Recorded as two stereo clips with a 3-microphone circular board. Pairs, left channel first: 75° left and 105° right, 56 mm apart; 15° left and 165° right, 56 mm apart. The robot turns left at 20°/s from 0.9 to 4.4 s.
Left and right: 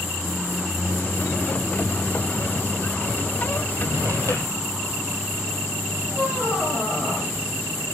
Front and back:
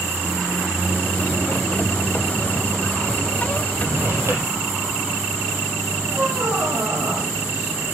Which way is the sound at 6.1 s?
140° left.